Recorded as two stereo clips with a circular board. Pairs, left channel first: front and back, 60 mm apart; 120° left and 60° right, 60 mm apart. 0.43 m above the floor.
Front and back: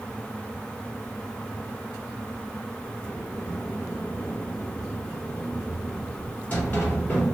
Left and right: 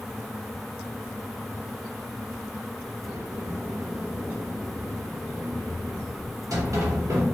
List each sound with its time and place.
3.0 s a sliding door: 60° right, 1.5 m